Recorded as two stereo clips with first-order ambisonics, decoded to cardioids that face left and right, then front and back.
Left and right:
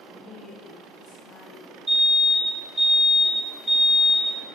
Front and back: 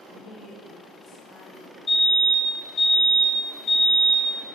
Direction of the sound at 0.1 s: 20° right.